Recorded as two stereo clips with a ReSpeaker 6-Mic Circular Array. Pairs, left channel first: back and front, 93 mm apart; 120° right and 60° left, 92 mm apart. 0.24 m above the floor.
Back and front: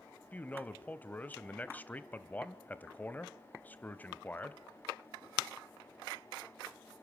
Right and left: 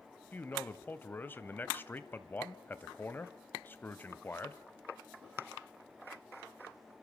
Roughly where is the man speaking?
Behind right.